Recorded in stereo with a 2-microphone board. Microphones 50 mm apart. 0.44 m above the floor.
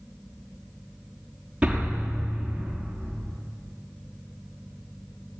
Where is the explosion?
15° right (ahead or behind), 6 m.